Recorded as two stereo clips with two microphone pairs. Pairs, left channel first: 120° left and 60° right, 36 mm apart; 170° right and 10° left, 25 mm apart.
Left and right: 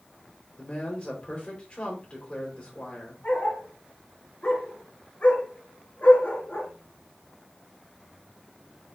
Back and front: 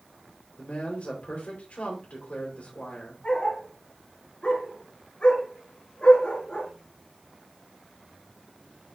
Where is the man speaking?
Straight behind, 4 m.